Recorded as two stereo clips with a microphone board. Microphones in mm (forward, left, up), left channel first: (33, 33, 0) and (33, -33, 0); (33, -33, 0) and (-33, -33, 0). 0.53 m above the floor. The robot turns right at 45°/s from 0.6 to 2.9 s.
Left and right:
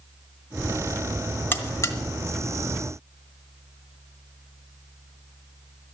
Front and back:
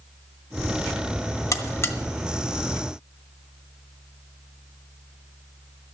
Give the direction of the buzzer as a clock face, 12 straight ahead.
11 o'clock.